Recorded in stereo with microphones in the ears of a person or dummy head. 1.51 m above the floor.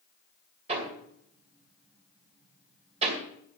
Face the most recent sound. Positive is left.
turn(degrees=-35)  # may be behind; listen again after turning